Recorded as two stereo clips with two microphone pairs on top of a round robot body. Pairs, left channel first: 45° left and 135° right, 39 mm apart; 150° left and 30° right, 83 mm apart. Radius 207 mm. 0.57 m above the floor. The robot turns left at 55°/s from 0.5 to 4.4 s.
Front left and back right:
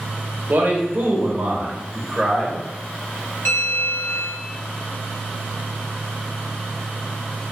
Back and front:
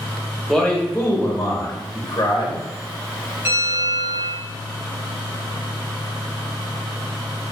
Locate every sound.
0.5 s a man speaking: 120° right, 1.0 m; by 2.6 s 120° left, 1.0 m
3.5 s a bell: 35° left, 1.0 m; by 4.4 s 15° right, 1.0 m